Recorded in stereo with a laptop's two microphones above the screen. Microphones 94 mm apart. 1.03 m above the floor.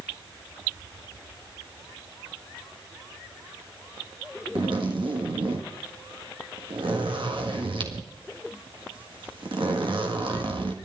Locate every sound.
4.5 s a zipper: 65° right (ahead or behind), 1.7 m